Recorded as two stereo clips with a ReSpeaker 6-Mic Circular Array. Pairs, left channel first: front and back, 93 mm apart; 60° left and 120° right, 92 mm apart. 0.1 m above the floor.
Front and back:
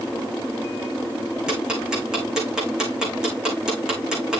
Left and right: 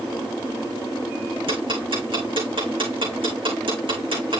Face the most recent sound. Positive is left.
turn(degrees=-100)